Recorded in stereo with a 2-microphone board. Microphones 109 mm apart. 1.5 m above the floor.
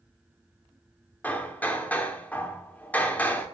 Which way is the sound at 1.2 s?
15° left (ahead or behind).